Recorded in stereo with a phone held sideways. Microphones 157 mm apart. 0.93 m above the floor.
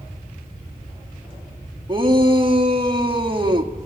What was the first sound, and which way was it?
A shout, 30° right (ahead or behind).